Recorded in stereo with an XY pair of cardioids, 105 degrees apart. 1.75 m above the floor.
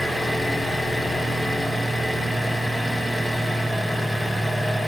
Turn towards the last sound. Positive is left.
turn(degrees=0)